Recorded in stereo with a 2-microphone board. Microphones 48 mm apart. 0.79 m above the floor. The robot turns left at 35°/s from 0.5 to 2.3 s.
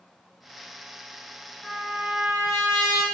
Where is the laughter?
No laughter in this recording.